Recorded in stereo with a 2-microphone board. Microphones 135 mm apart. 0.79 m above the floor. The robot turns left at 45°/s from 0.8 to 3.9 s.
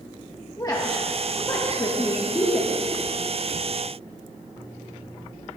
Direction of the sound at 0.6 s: 30° left (ahead or behind).